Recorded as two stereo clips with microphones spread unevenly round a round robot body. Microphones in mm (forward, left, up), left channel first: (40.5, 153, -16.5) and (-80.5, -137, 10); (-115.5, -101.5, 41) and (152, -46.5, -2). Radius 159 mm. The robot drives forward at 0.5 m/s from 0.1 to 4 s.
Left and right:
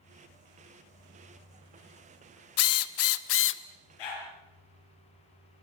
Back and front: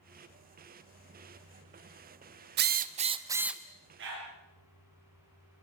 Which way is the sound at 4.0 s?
70° left.